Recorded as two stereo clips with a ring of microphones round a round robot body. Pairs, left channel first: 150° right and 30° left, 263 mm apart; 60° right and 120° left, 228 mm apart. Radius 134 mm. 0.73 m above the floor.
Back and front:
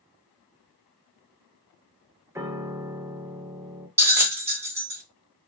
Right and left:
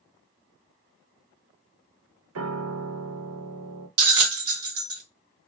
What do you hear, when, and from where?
2.4 s a piano: 110° left, 0.5 m
4.0 s a bell: 110° left, 1.0 m